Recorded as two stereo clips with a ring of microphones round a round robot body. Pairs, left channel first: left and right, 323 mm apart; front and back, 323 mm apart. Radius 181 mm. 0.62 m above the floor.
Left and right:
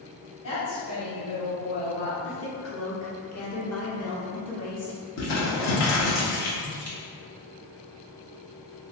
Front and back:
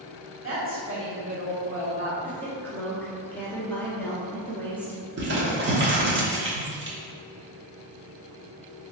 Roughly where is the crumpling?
Behind left.